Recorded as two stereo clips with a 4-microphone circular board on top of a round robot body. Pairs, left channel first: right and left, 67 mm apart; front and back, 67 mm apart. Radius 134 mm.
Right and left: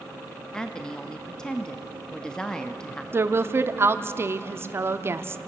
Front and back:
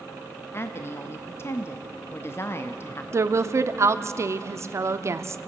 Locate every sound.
0.5 s a woman speaking: 15° right, 1.0 m
3.1 s a woman speaking: 140° left, 1.1 m